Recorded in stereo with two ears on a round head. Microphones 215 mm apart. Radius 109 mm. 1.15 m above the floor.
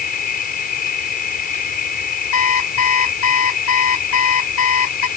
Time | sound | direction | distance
0.0 | an insect | 35° left (ahead or behind) | ?
2.3 | an alarm clock | 65° left (ahead or behind) | ?